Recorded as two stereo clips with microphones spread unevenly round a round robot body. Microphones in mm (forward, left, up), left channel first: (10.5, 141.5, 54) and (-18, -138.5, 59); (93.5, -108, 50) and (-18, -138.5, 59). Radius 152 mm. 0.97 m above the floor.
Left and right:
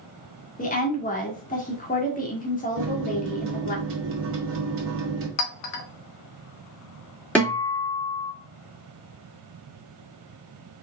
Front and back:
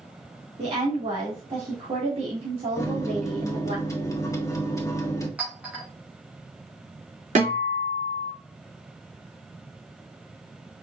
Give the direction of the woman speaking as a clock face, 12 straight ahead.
7 o'clock.